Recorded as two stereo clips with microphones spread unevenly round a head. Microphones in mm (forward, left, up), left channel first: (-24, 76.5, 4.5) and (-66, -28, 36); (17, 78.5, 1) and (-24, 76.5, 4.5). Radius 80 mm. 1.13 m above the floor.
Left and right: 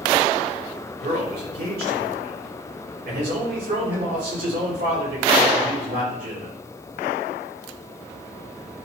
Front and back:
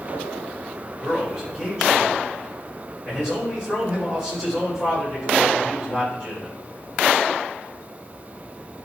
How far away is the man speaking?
About 4.5 m.